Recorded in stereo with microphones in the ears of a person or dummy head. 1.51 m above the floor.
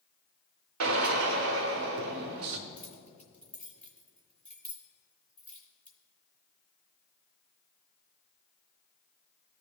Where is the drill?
80° right, 0.8 m.